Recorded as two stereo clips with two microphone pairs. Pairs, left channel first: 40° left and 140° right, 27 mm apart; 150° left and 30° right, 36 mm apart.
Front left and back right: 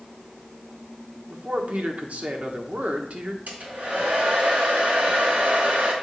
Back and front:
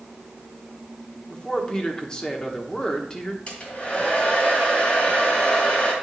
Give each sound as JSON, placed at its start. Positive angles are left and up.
{"t": 1.3, "sound": "a man speaking", "azimuth_deg": -140, "distance_m": 1.2}
{"t": 3.5, "sound": "a hair dryer", "azimuth_deg": -160, "distance_m": 2.5}